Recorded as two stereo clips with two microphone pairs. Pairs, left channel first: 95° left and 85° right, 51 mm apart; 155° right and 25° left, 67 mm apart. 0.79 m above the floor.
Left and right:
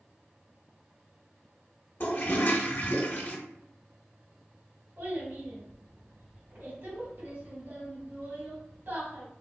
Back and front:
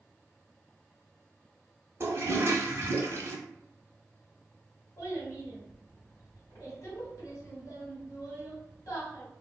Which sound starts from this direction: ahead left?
A toilet flushing, at 2.0 s.